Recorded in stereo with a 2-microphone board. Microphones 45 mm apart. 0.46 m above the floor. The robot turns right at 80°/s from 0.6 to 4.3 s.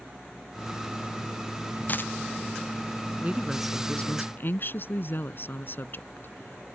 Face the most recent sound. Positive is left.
turn(degrees=50)